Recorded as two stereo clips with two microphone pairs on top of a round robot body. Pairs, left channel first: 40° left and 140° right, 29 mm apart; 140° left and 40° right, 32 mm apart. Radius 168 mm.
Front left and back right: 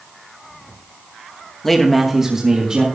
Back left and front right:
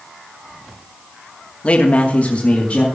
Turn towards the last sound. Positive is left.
turn(degrees=180)